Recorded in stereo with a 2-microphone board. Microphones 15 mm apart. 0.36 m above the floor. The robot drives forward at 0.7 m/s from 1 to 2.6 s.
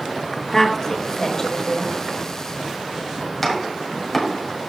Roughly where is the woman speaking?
Left.